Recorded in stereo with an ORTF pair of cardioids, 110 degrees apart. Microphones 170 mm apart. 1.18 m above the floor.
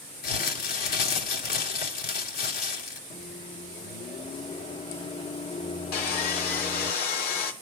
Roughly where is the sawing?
Ahead left.